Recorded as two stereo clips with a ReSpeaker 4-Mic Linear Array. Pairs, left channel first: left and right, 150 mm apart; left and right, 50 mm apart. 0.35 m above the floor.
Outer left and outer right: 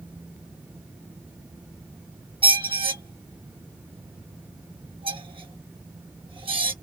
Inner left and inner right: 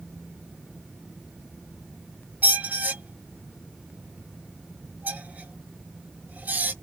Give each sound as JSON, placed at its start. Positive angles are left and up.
{"t": 2.4, "sound": "a squeak", "side_deg": -35, "distance_m": 0.5}